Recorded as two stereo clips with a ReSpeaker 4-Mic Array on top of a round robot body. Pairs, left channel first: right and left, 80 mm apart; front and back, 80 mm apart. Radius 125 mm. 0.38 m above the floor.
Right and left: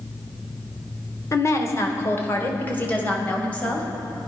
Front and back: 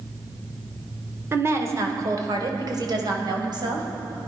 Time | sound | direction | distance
1.3 | a woman speaking | 130° right | 2 m